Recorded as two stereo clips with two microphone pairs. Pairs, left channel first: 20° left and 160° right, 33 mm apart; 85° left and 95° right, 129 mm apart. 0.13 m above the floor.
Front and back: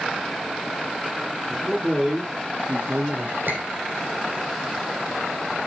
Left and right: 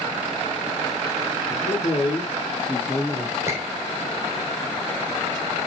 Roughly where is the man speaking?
Behind left.